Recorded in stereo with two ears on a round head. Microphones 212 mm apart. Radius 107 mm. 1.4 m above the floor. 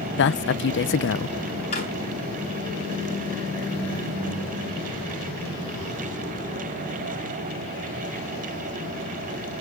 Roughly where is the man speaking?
Left.